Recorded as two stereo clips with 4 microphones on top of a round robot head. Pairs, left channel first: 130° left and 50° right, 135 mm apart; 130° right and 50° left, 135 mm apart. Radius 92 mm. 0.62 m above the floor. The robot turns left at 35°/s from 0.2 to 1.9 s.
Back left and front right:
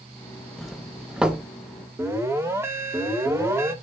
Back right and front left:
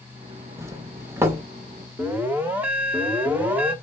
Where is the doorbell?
45° left, 1.2 m; by 1.4 s 15° left, 1.2 m.